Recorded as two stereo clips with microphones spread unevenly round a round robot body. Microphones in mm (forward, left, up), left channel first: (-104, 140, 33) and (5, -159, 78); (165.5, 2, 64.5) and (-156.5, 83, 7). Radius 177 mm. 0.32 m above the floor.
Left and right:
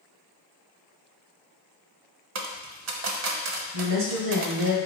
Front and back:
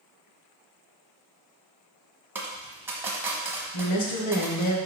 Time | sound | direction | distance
2.4 | a dropped coin | 115° right | 1.0 m
3.7 | a woman speaking | 50° right | 1.6 m